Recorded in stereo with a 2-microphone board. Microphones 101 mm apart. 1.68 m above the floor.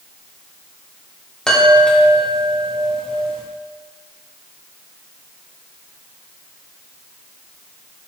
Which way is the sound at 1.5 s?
5° left (ahead or behind).